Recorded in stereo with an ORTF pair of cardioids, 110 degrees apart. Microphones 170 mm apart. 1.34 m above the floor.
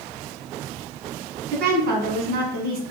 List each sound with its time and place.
1.5 s a woman speaking: 65° right, 1.3 m